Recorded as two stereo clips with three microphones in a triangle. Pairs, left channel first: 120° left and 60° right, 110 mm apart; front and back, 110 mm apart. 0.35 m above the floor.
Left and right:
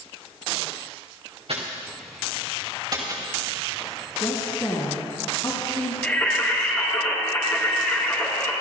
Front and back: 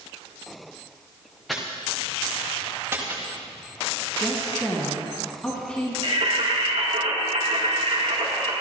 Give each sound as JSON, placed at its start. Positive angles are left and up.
{"t": 1.5, "sound": "footsteps", "azimuth_deg": -90, "distance_m": 3.0}
{"t": 4.2, "sound": "a woman speaking", "azimuth_deg": 80, "distance_m": 2.5}
{"t": 6.0, "sound": "singing", "azimuth_deg": -170, "distance_m": 3.5}